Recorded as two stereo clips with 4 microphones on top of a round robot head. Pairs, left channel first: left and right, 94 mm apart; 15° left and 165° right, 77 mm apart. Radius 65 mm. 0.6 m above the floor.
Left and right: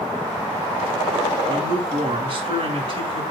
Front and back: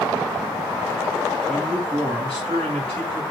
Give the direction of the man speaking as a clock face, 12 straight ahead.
2 o'clock.